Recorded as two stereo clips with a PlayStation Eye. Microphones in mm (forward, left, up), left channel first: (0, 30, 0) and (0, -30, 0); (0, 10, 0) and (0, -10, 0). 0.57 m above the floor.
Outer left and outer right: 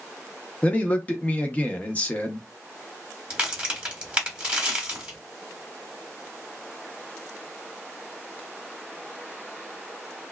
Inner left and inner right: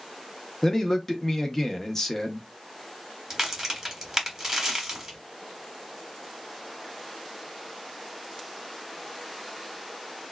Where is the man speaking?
25° left (ahead or behind), 0.6 m.